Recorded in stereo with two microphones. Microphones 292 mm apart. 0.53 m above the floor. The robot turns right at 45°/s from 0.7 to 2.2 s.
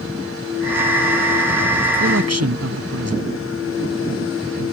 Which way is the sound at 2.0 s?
50° right (ahead or behind).